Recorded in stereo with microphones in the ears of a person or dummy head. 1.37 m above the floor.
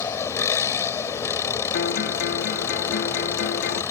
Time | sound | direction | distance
0.0 | an engine running | 15° left (ahead or behind) | ?
1.7 | a guitar | 65° left (ahead or behind) | ?